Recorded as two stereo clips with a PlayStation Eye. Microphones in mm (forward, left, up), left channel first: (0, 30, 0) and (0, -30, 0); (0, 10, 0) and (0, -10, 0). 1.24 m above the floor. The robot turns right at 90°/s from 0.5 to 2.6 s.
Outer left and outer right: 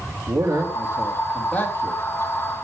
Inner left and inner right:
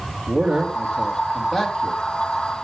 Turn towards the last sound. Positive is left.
turn(degrees=120)